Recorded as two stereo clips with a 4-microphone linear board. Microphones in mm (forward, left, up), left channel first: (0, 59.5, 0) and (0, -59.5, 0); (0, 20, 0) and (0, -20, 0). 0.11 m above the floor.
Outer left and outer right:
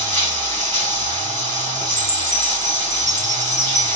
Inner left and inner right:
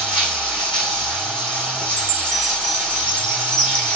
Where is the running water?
40° right (ahead or behind), 2.5 m.